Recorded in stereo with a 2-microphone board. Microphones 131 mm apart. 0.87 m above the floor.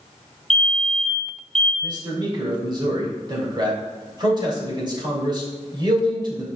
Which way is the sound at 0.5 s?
Centre (ahead or behind).